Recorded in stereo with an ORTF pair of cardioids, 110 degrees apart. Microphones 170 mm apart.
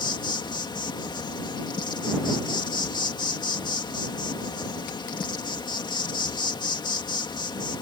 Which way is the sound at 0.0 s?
25° left.